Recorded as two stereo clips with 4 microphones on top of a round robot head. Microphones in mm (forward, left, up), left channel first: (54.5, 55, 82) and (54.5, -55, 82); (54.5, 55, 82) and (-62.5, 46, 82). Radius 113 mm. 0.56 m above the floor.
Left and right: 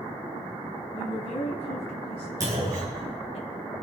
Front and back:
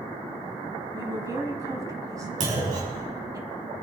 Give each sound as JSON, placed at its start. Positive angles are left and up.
{"t": 0.9, "sound": "a woman speaking", "azimuth_deg": 125, "distance_m": 5.0}
{"t": 2.4, "sound": "a clunk", "azimuth_deg": -155, "distance_m": 5.5}